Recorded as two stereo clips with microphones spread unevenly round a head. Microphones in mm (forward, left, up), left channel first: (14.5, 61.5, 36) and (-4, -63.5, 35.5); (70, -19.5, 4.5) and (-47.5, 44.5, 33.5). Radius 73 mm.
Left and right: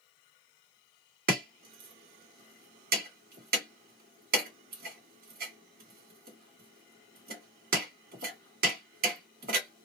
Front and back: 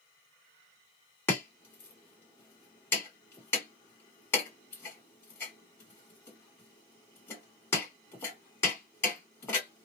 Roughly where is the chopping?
Right.